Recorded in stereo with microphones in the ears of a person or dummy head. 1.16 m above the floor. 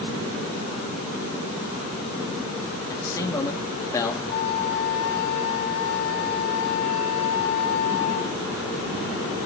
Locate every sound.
2.9 s a man speaking: 15° left (ahead or behind), 1.6 m
4.3 s a flute: 60° left (ahead or behind), 2 m